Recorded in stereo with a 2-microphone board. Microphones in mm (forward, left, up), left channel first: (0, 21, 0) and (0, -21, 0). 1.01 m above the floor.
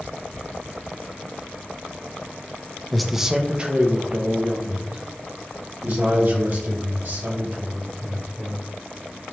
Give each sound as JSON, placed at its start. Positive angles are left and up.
{"t": 2.9, "sound": "a man speaking", "side_deg": 5, "distance_m": 0.5}